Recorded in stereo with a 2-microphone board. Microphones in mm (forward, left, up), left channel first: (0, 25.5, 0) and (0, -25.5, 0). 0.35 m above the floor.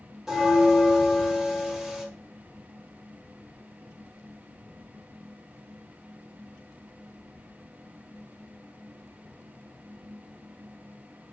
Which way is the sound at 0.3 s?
10° right (ahead or behind).